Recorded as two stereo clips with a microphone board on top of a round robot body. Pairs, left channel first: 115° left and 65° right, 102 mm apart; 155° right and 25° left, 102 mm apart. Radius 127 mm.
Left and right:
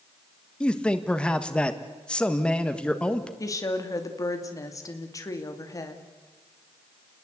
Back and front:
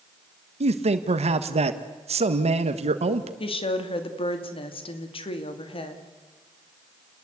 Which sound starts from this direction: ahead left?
A man speaking, at 0.6 s.